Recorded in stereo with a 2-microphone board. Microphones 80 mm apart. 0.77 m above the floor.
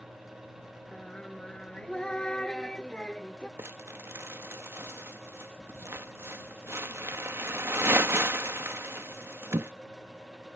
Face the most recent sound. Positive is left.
turn(degrees=-30)  # may be behind; listen again after turning